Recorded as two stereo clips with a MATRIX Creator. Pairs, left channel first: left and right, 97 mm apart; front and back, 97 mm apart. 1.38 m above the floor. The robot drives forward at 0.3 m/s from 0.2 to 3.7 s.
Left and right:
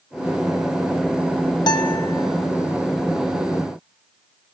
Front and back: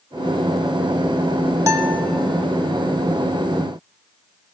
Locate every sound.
1.7 s a guitar: 125° left, 0.8 m; by 2.1 s 135° left, 0.9 m